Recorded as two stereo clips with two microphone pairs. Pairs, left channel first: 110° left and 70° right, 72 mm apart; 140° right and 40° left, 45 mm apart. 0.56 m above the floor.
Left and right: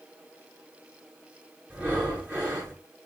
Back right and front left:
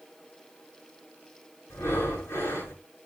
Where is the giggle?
No giggle in this recording.